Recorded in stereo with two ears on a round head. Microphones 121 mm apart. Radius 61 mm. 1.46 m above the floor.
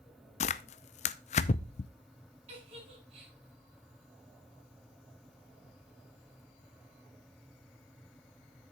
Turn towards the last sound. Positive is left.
turn(degrees=-45)  # may be behind; listen again after turning